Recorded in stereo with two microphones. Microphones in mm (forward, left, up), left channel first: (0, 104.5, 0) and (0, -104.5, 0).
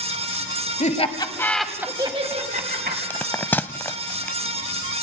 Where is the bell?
10° left (ahead or behind), 0.6 m.